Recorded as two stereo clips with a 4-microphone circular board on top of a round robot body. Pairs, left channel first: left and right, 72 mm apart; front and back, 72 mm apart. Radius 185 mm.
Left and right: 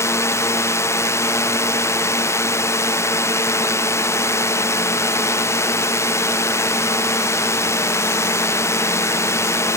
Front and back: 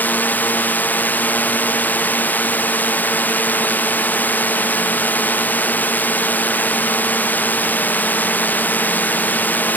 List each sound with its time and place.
0.0 s a drone: 60° left